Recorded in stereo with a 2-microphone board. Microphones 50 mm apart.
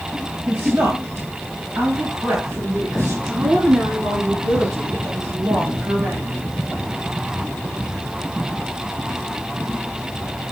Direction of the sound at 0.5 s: 70° right (ahead or behind).